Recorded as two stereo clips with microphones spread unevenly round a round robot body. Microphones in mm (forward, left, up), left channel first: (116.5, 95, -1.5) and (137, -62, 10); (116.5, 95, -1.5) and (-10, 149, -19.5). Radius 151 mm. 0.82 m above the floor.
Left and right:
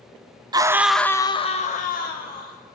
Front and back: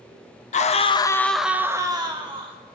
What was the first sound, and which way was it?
A scream, 20° right.